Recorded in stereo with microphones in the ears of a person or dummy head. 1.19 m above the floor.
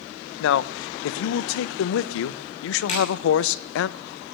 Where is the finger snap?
35° left (ahead or behind), 7 m.